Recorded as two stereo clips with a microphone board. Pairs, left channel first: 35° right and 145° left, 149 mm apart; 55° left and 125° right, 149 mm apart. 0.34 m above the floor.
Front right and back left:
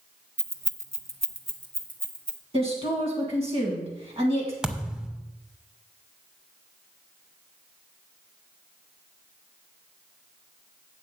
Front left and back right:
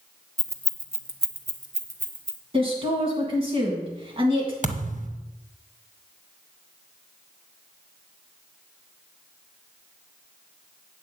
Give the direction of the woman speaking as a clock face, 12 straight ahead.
6 o'clock.